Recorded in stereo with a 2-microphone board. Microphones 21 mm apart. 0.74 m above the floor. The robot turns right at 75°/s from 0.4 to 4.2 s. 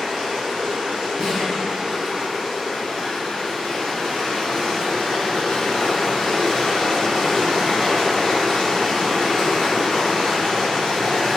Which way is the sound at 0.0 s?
150° right.